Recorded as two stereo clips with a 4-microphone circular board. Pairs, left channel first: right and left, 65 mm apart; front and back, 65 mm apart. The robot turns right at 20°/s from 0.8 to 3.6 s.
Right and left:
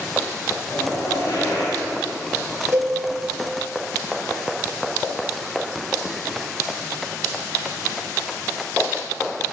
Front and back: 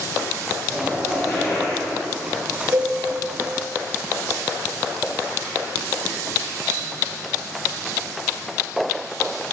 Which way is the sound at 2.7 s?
135° left.